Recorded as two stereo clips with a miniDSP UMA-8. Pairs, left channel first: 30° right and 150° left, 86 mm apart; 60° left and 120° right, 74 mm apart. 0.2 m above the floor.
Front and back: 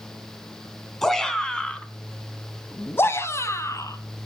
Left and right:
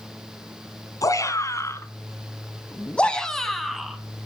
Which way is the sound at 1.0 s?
55° left.